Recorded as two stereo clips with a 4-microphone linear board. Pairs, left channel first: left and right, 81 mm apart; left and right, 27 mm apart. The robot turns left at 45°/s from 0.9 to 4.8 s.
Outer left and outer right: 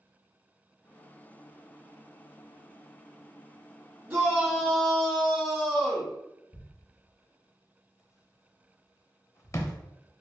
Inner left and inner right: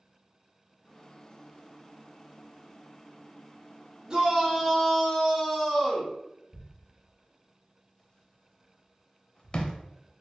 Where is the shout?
165° right, 1.5 m; by 6.1 s 165° left, 1.5 m.